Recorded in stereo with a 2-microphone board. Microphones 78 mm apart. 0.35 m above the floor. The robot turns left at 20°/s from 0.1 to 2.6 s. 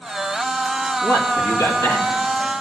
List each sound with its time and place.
1.0 s a man speaking: 40° left (ahead or behind), 1.7 m; by 2.2 s 60° left (ahead or behind), 1.7 m